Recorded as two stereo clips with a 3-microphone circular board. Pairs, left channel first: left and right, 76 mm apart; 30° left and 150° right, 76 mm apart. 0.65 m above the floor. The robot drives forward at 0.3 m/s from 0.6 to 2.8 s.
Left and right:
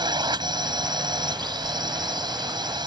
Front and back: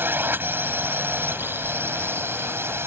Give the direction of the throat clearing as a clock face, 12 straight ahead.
No throat clearing in this recording.